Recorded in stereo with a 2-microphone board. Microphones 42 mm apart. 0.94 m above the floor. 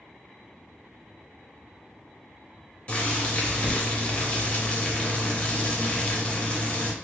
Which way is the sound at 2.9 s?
35° left (ahead or behind).